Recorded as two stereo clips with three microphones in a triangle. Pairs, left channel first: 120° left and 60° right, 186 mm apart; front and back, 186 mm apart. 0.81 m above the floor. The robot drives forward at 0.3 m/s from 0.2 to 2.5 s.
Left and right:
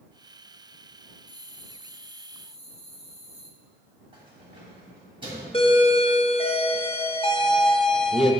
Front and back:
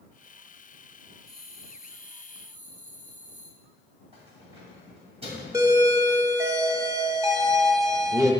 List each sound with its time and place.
1.3 s a bell: 120° left, 0.9 m; by 3.5 s 135° left, 1.2 m
4.1 s keys jangling: 120° right, 3 m
5.5 s a doorbell: 125° left, 0.8 m